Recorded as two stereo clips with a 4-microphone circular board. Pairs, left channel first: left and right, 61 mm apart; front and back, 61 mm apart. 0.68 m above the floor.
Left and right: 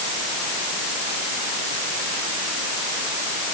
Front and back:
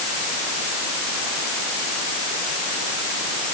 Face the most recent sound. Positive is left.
No sound to turn to.